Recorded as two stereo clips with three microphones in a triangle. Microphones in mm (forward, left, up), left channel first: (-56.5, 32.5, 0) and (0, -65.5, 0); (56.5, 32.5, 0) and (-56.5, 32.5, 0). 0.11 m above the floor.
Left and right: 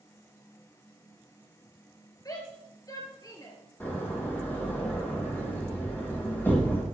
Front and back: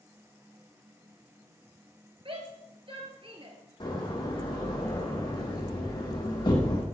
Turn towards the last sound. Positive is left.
turn(degrees=50)